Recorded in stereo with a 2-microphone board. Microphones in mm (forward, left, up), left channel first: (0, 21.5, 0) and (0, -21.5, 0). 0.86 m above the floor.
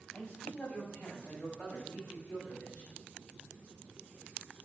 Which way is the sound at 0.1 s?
45° left (ahead or behind).